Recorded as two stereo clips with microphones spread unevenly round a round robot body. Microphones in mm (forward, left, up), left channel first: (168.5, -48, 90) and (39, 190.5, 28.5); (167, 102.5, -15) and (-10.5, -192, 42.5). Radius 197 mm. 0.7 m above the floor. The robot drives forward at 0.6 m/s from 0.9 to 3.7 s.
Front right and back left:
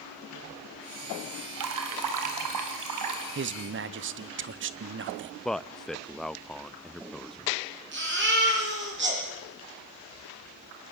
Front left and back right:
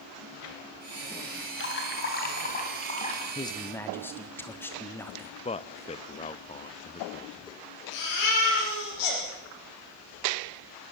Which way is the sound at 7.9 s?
70° left.